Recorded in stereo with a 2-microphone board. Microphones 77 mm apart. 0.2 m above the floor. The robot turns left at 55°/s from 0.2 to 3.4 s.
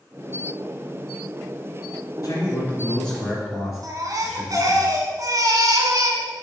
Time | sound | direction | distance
2.2 | a man speaking | 60° left | 3 m
3.8 | a baby crying | 50° right (ahead or behind) | 1.0 m